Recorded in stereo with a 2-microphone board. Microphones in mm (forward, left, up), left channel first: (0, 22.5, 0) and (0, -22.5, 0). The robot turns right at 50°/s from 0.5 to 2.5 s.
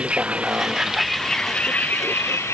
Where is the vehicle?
20° right (ahead or behind); by 2.5 s 70° left (ahead or behind).